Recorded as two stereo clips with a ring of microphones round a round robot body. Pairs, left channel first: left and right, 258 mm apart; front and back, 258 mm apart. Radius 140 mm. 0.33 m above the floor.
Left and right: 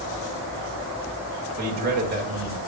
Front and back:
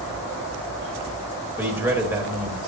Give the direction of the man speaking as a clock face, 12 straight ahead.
3 o'clock.